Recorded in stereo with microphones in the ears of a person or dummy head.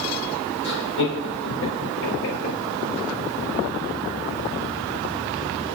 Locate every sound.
0.6 s laughter: 70° left (ahead or behind), 3.5 m; by 2.6 s 85° left, 4 m